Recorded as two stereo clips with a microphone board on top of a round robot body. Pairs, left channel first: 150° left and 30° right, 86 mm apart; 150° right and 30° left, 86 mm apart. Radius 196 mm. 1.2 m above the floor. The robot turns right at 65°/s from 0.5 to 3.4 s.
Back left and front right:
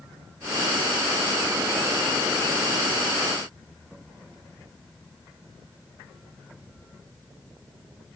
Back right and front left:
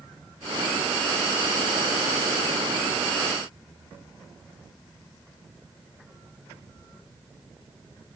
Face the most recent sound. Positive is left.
No sound to turn to.